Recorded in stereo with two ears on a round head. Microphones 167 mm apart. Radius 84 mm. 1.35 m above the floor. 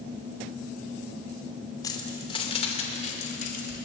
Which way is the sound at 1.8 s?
20° left (ahead or behind).